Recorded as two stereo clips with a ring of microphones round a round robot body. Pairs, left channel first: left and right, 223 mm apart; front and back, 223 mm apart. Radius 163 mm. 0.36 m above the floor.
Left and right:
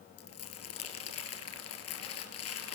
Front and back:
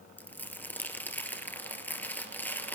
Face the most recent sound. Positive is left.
turn(degrees=80)